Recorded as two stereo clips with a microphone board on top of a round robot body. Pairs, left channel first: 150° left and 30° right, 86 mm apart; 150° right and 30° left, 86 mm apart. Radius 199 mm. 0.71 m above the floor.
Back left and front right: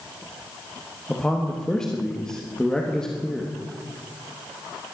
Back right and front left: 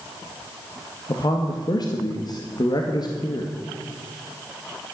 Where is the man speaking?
130° right, 1.9 m.